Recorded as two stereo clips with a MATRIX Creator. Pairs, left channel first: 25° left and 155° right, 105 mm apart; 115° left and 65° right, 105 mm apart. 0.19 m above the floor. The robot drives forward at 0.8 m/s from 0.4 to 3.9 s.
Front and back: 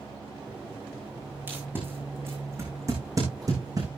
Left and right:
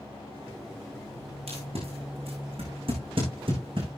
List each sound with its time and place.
1.5 s tape being pulled: 85° right, 5.5 m; by 3.9 s 105° right, 6 m